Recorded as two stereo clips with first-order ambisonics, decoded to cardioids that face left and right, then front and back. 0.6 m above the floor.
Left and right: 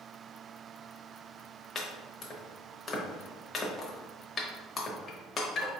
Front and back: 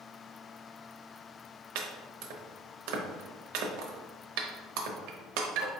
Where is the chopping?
160° left, 0.7 m.